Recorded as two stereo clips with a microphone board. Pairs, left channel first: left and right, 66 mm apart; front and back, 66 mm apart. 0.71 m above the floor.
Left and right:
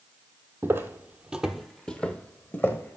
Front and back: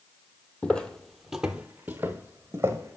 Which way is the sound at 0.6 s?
65° right.